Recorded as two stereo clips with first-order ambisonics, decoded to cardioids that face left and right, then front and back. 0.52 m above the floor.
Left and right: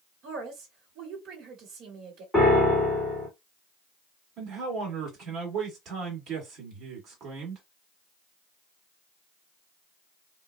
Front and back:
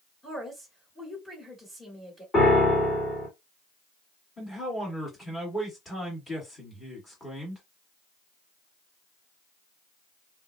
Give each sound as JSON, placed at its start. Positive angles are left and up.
{"t": 0.2, "sound": "a woman speaking", "azimuth_deg": -75, "distance_m": 1.2}
{"t": 2.3, "sound": "a piano", "azimuth_deg": 5, "distance_m": 1.3}
{"t": 4.4, "sound": "a man speaking", "azimuth_deg": -70, "distance_m": 1.5}